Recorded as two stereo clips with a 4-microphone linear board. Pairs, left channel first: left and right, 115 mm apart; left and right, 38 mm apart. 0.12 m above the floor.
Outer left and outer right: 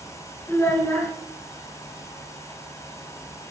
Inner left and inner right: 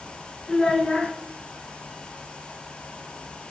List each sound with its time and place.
0.5 s a child speaking: 20° left (ahead or behind), 0.8 m